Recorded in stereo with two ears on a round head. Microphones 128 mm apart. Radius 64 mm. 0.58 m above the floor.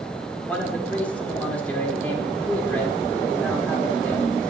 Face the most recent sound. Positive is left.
turn(degrees=10)  # may be behind; listen again after turning